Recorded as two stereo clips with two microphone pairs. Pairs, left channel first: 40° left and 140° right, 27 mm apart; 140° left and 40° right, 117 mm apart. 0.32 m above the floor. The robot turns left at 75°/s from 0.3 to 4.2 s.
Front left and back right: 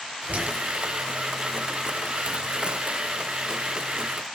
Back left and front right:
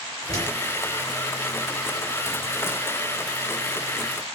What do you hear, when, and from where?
0.3 s a door slam: 150° right, 5.5 m; by 0.5 s 170° right, 5.5 m